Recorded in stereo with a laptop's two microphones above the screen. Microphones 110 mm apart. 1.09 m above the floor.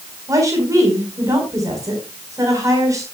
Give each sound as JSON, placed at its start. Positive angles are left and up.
{"t": 0.3, "sound": "a woman speaking", "side_deg": -30, "distance_m": 4.5}